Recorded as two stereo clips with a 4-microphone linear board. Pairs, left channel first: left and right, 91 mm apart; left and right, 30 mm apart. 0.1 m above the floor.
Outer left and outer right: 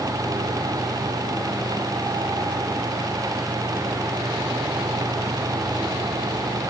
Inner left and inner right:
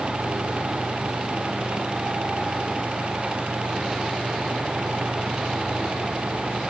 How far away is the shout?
No shout in this recording.